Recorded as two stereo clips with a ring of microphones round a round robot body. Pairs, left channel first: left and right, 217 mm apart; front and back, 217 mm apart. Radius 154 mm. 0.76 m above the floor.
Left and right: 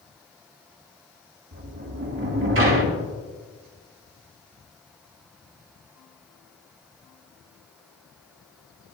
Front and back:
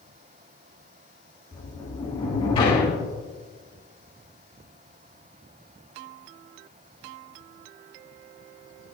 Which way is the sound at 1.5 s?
70° right.